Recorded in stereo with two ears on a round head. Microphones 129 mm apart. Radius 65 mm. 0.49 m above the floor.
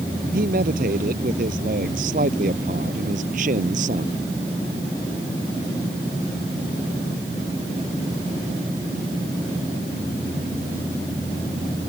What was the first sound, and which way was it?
A man speaking, 65° right (ahead or behind).